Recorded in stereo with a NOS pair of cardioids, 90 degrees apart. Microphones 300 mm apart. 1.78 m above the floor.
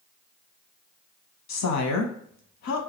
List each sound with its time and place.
1.5 s a woman speaking: 65° left, 0.8 m